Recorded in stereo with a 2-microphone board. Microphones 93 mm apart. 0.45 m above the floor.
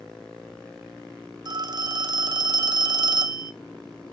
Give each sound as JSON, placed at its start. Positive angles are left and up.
{"t": 1.4, "sound": "a phone ringing", "side_deg": -45, "distance_m": 0.7}